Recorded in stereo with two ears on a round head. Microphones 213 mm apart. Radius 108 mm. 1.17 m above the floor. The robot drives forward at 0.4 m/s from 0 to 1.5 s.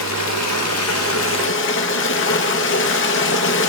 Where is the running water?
80° left, 0.8 m; by 3.7 s 60° left (ahead or behind), 1.0 m.